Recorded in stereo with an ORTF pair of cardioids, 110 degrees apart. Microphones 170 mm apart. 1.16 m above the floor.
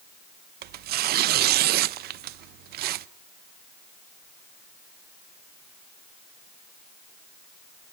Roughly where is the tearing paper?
Ahead right.